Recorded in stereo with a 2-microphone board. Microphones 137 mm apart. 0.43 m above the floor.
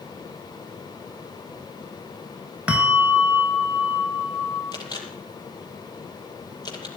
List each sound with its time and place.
2.7 s a bell: 10° right (ahead or behind), 3.5 m
4.7 s a camera shutter: 30° left (ahead or behind), 6 m